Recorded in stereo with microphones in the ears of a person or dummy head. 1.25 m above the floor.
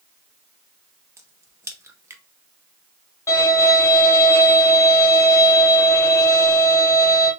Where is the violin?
20° left (ahead or behind), 1.6 m.